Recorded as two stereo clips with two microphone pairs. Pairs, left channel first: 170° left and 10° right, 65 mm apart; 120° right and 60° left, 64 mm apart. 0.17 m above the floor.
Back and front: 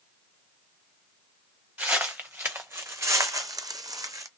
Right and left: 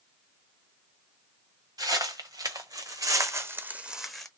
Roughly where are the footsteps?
Ahead left.